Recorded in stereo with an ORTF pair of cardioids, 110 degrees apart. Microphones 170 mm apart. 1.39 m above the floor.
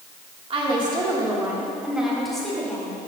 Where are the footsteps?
No footsteps in this recording.